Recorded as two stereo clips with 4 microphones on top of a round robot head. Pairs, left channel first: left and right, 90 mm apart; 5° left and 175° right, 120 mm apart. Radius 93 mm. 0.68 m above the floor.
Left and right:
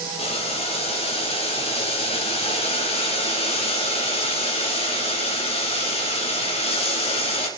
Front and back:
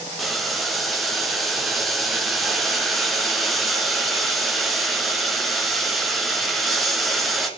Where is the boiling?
95° left, 1.6 m.